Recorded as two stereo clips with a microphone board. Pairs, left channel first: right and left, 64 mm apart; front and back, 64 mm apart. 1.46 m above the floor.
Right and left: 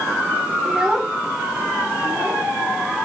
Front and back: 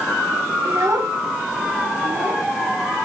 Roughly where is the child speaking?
Behind.